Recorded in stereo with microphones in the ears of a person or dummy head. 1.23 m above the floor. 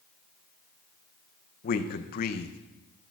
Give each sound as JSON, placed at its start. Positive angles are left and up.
{"t": 1.6, "sound": "a man speaking", "side_deg": 50, "distance_m": 0.5}